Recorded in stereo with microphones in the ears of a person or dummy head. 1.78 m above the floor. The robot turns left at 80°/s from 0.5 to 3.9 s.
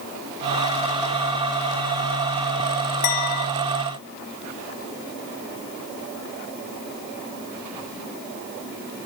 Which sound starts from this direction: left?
A clink, at 3.0 s.